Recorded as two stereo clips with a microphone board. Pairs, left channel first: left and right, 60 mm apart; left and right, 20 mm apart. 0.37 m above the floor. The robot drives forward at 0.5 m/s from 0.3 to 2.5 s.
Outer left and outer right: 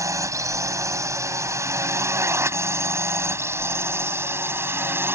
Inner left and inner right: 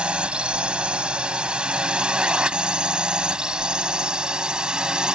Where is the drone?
60° right (ahead or behind); by 5.2 s 40° right (ahead or behind).